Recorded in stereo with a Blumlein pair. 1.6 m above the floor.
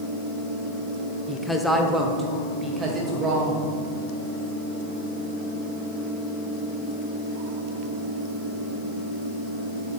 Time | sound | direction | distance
1.3 | a woman speaking | 15° left | 0.9 m